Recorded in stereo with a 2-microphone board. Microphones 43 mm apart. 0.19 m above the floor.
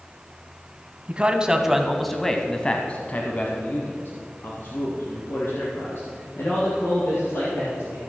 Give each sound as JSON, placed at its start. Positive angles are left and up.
{"t": 1.1, "sound": "a man speaking", "side_deg": -30, "distance_m": 1.2}